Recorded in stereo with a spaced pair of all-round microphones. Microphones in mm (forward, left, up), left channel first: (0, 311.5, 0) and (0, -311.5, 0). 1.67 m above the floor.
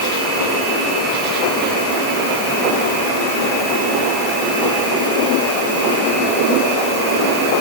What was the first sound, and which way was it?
Only background noise.